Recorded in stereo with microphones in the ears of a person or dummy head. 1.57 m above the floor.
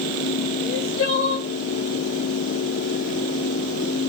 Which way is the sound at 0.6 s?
60° left (ahead or behind).